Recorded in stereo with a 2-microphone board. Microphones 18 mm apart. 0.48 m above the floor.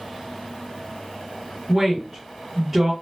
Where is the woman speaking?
15° right (ahead or behind), 1.3 m.